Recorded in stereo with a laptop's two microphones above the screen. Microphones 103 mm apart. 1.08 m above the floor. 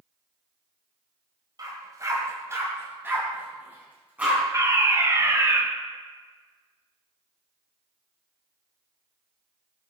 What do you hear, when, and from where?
1.6 s a dog barking: 40° right (ahead or behind), 1.9 m; by 4.4 s 15° right (ahead or behind), 3.5 m
4.5 s a fire alarm: 30° right (ahead or behind), 1.5 m